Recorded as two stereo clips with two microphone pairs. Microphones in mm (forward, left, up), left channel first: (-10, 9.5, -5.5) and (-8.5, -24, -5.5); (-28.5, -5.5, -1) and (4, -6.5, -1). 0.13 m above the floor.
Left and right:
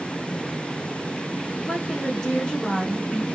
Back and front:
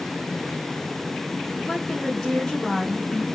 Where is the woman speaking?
120° left, 1.1 m.